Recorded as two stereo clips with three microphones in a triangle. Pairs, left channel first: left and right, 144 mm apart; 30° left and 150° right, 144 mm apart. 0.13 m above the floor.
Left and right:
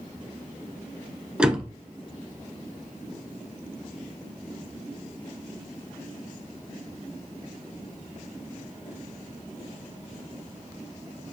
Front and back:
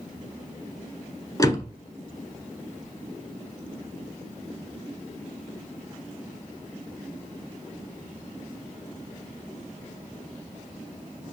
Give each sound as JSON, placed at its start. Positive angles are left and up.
{"t": 1.4, "sound": "a door slam", "azimuth_deg": -15, "distance_m": 0.9}